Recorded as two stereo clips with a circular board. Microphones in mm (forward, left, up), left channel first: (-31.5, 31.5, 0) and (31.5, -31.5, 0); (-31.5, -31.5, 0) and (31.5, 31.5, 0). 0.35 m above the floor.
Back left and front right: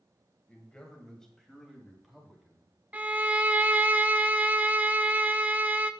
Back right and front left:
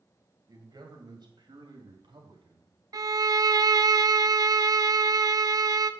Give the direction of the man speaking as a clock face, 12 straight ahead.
10 o'clock.